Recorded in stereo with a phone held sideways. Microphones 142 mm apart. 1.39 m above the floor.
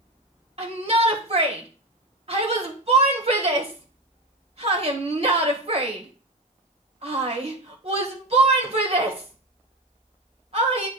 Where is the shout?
45° right (ahead or behind), 1.6 m.